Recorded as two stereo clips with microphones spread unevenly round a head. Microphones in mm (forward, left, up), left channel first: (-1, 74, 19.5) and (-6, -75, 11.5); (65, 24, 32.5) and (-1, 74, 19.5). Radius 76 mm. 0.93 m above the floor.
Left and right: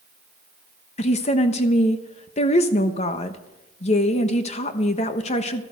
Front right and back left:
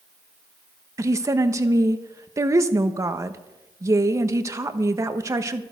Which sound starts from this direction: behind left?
A woman speaking, at 1.0 s.